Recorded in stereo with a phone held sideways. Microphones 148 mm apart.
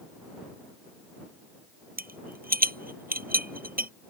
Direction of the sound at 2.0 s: 80° right.